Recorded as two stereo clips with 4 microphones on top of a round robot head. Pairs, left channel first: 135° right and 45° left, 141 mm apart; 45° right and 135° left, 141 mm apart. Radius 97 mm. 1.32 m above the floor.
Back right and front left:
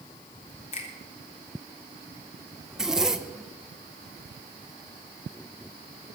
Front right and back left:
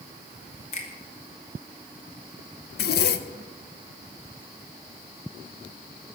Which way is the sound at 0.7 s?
90° right.